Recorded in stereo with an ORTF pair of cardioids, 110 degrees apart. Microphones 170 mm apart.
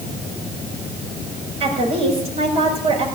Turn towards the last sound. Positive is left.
turn(degrees=-35)